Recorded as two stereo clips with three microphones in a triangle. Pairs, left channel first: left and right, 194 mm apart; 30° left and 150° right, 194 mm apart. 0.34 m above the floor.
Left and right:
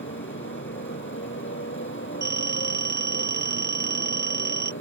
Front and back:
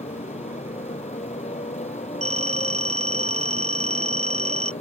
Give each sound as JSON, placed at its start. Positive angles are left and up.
{"t": 0.0, "sound": "a motorcycle", "azimuth_deg": 85}
{"t": 2.2, "sound": "a phone ringing", "azimuth_deg": -100}